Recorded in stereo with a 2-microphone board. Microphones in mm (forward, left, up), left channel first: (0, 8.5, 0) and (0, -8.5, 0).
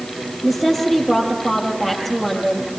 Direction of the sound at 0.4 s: Centre (ahead or behind).